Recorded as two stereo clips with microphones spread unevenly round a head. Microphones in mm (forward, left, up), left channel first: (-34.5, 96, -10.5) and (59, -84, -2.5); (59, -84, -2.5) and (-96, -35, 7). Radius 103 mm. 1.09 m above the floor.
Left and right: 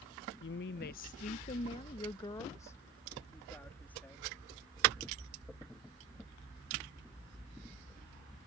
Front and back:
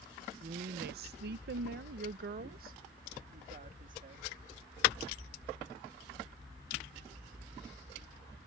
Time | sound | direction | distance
0.4 | a woman speaking | 120° left | ?